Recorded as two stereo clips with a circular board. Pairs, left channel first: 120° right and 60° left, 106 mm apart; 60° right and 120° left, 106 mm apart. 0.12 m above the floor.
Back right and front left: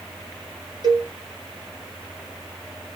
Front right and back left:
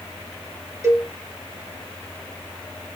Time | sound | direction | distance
0.8 | a cowbell | 75° left | 0.9 m